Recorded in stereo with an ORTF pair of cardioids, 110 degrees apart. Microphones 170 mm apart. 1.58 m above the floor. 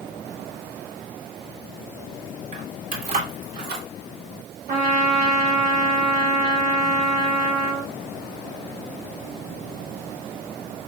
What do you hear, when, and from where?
2.5 s keys jangling: 45° right, 3.5 m; by 3.9 s 75° right, 3.5 m
4.7 s a trumpet: 60° right, 3 m